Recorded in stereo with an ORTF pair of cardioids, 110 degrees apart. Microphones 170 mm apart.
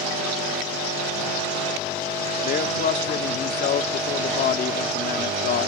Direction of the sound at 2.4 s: 60° left.